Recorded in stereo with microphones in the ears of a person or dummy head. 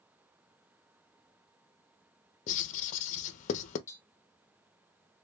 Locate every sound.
2.5 s writing: 45° left (ahead or behind), 0.8 m
3.9 s tapping: 20° left (ahead or behind), 0.9 m